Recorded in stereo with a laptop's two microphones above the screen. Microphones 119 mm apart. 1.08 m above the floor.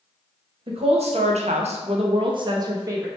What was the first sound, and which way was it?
A woman speaking, 55° right (ahead or behind).